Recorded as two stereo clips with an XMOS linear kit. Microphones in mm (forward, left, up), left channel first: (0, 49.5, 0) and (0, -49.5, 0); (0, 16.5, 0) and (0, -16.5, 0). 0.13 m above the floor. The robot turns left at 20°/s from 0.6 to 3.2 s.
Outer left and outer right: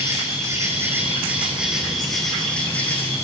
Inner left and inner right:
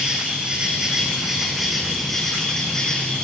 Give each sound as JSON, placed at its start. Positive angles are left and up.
{"t": 0.0, "sound": "an insect", "azimuth_deg": -150, "distance_m": 8.0}